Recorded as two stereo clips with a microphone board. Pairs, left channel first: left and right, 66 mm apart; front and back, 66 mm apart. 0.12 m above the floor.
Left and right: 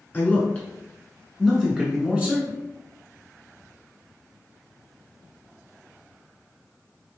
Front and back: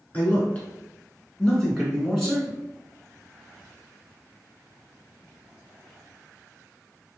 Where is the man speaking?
50° left, 1.5 m; by 2.6 s 100° right, 1.3 m.